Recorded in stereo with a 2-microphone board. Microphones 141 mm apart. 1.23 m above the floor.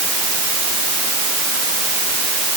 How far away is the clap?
I don't hear a clap.